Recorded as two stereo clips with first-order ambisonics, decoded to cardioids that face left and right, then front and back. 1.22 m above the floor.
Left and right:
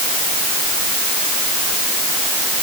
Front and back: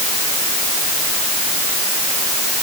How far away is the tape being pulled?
I don't hear tape being pulled.